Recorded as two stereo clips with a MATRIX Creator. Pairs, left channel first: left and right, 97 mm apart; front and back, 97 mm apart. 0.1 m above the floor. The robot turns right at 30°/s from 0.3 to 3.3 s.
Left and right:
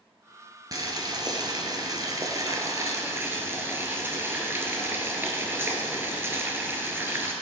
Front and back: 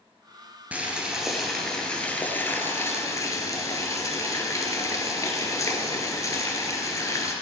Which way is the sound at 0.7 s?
115° right.